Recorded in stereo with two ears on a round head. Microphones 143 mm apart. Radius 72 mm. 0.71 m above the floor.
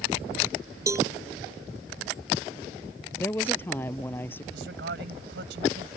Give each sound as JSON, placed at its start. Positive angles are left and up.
{"t": 0.9, "sound": "a cowbell", "side_deg": -20}
{"t": 3.1, "sound": "a woman speaking", "side_deg": 10}
{"t": 4.5, "sound": "a man speaking", "side_deg": -80}